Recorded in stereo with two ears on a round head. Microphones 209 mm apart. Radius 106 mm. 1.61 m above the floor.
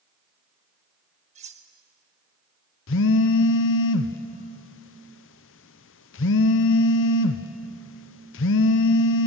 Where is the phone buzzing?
55° left (ahead or behind), 0.6 m.